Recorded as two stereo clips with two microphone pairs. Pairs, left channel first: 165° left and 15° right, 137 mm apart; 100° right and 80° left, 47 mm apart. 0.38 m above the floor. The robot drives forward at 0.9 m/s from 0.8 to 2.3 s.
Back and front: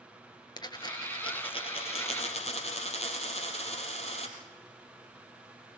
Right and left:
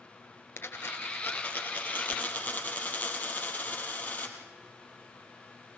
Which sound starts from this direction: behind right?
A dropped coin, at 0.6 s.